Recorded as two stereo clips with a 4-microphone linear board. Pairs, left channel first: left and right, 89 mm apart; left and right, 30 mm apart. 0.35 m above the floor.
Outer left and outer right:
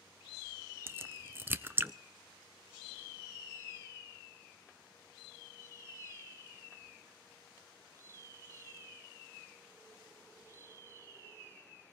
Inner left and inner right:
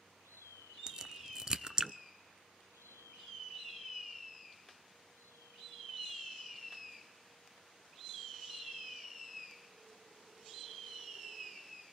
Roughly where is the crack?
Right.